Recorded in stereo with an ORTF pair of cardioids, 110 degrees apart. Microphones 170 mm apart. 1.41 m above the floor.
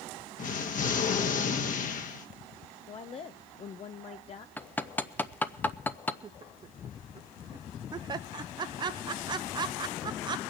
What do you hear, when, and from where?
0.4 s an explosion: 50° left, 1.5 m
2.9 s a woman speaking: 35° left, 0.6 m
4.6 s hammering: 10° left, 0.7 m
6.2 s laughter: 25° right, 0.6 m